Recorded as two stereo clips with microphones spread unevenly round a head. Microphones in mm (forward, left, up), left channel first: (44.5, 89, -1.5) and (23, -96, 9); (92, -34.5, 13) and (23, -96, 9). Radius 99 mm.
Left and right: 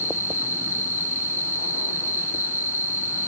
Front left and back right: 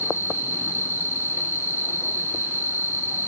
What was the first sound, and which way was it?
An insect, 20° right.